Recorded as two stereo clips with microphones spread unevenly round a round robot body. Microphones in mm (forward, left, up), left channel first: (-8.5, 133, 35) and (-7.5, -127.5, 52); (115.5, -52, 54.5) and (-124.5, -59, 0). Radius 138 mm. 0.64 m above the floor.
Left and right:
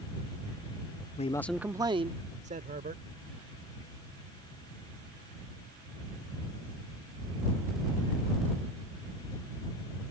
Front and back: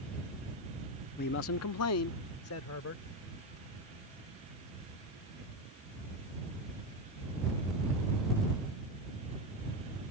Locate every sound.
1.2 s a man speaking: 55° left; by 3.0 s 30° right